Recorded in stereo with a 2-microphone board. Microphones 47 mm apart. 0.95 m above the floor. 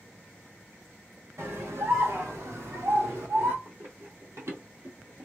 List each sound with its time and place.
1.4 s a scream: 65° right (ahead or behind), 1.6 m; by 3.5 s 70° right (ahead or behind), 2 m
3.6 s running footsteps: 70° right (ahead or behind), 3 m; by 5.2 s 50° right (ahead or behind), 1.3 m